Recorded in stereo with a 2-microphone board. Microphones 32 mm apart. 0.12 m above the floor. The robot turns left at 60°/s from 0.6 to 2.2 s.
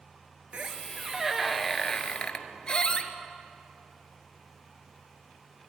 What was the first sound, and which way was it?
A squeak, 130° right.